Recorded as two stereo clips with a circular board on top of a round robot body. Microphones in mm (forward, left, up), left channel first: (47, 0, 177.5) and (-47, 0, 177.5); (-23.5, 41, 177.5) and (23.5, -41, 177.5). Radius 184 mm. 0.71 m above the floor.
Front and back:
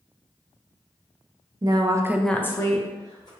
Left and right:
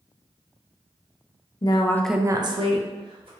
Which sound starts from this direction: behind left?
A woman speaking, at 1.6 s.